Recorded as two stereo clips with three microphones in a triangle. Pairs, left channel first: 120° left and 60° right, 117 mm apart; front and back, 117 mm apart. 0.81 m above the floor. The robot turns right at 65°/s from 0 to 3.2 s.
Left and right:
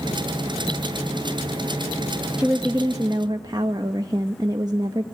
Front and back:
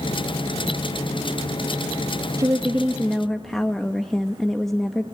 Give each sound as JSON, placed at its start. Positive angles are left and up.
{"t": 2.4, "sound": "a woman speaking", "azimuth_deg": -140, "distance_m": 1.0}